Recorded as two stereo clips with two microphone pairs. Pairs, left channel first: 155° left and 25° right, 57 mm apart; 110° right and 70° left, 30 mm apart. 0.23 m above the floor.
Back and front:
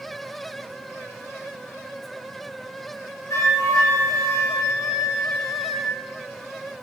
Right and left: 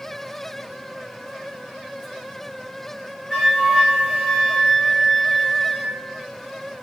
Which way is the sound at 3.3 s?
170° left.